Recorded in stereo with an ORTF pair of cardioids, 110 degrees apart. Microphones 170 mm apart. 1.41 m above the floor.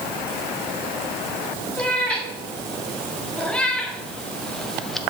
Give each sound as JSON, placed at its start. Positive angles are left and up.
{"t": 1.8, "sound": "a cat meowing", "azimuth_deg": 5, "distance_m": 3.0}